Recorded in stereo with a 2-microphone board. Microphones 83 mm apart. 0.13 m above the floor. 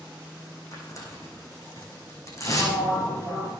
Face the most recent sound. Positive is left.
turn(degrees=40)  # may be behind; listen again after turning